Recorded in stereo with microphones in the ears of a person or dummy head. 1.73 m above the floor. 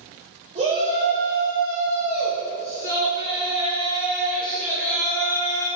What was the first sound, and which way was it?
A shout, 40° right (ahead or behind).